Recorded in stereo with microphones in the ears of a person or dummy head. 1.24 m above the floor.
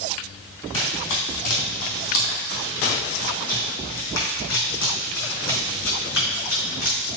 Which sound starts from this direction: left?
Running footsteps, at 0.7 s.